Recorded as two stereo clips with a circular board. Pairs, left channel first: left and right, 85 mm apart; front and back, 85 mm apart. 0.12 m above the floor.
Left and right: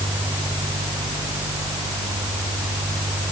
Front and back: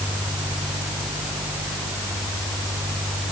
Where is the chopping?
No chopping in this recording.